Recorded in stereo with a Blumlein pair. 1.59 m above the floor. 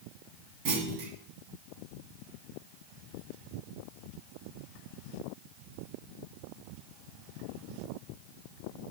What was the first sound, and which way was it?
A clunk, 40° right.